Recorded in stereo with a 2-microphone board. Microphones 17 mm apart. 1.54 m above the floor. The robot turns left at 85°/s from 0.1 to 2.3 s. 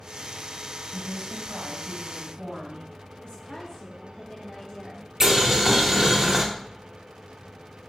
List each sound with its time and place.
0.9 s a woman speaking: 15° right, 1.8 m; by 2.8 s 130° right, 1.8 m
3.2 s a woman speaking: 55° left (ahead or behind), 0.6 m
5.2 s boiling: 30° right (ahead or behind), 0.7 m